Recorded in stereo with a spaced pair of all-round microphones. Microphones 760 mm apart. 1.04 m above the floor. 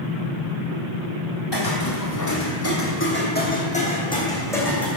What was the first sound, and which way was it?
Footsteps, 35° left (ahead or behind).